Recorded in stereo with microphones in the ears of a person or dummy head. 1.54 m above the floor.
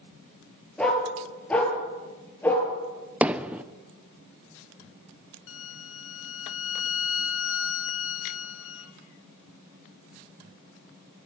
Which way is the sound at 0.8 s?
5° left (ahead or behind).